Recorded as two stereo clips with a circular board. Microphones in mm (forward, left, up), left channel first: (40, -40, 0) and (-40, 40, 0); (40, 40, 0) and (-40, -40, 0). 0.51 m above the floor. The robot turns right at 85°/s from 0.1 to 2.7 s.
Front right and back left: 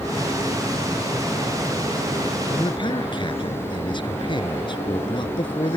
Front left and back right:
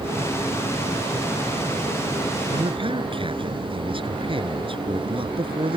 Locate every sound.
2.5 s a man speaking: 110° right; by 5.8 s 95° right